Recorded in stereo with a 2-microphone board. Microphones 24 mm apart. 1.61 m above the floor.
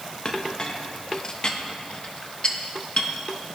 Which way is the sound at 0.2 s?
40° left (ahead or behind).